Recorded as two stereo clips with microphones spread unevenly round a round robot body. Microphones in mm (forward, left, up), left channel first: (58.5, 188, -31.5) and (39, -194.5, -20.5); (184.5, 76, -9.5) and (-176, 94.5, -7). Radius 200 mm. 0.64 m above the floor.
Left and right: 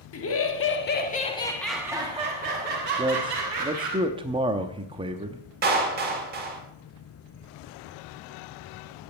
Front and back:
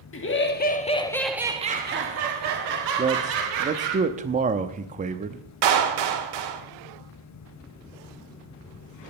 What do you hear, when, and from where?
0.1 s laughter: 45° left, 1.8 m; by 4.0 s 150° right, 3 m
3.0 s a man speaking: 155° right, 0.5 m
5.6 s a clap: 160° right, 1.8 m